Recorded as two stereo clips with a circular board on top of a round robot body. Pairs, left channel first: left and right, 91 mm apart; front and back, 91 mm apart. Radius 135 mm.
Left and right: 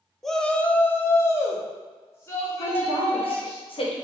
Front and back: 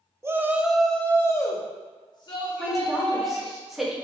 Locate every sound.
0.2 s a shout: 175° left, 0.7 m; by 3.6 s 30° left, 1.8 m
2.6 s a woman speaking: 90° left, 1.3 m